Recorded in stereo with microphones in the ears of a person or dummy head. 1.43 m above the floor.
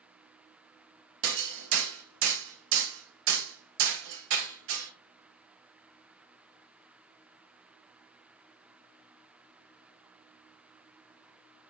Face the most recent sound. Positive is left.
turn(degrees=-85)